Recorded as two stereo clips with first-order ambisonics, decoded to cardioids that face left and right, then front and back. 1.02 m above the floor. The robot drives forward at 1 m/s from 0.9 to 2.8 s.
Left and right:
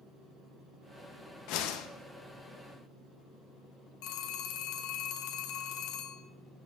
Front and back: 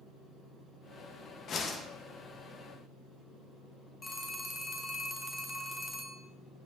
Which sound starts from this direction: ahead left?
A whoosh, at 1.5 s.